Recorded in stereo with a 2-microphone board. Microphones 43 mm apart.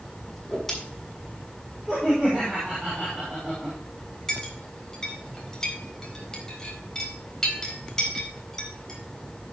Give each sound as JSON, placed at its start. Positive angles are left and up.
{"t": 0.3, "sound": "a whoosh", "side_deg": 5, "distance_m": 7.0}
{"t": 1.9, "sound": "laughter", "side_deg": -20, "distance_m": 6.0}
{"t": 4.3, "sound": "a clink", "side_deg": 15, "distance_m": 4.0}